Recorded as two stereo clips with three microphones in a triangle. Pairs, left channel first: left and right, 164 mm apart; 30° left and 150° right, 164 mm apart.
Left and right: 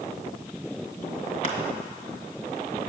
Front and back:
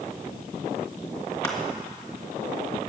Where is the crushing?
95° left, 2.5 m.